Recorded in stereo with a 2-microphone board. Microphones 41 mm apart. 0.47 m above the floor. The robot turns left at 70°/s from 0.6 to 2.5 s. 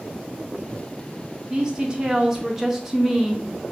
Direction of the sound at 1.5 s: 20° right (ahead or behind).